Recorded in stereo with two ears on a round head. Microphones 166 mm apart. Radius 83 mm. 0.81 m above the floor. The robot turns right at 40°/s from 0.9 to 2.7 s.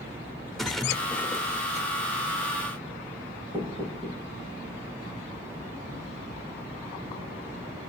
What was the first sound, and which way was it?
A splash, straight ahead.